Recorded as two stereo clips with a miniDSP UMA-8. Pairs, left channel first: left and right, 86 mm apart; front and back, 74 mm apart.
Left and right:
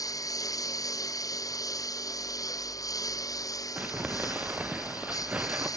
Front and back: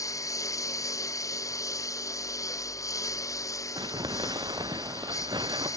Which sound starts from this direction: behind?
Crumpling, at 3.8 s.